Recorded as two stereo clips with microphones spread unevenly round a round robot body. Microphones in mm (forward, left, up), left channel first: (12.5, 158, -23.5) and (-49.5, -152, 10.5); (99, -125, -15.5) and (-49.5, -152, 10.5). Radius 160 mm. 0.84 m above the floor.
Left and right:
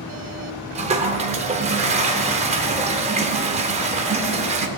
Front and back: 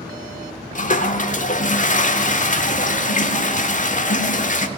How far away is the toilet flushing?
About 0.9 m.